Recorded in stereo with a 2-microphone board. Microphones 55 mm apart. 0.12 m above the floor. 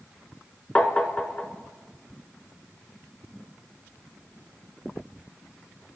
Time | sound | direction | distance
0.8 | tapping | 20° left (ahead or behind) | 0.5 m